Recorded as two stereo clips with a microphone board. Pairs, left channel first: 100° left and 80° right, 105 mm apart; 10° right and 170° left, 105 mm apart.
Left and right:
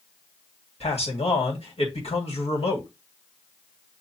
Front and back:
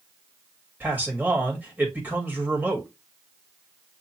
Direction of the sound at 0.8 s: 100° left.